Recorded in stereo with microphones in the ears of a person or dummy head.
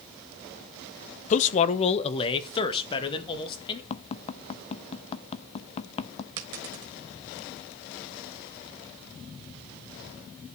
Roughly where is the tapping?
Left.